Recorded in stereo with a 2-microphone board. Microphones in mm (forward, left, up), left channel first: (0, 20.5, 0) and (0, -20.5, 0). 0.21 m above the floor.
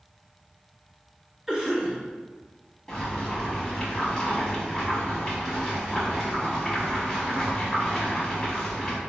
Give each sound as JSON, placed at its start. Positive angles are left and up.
{"t": 1.5, "sound": "a cough", "side_deg": -10, "distance_m": 1.0}
{"t": 2.9, "sound": "boiling", "side_deg": 15, "distance_m": 0.9}